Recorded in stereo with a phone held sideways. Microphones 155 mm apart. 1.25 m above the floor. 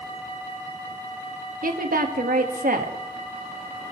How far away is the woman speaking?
About 1.6 m.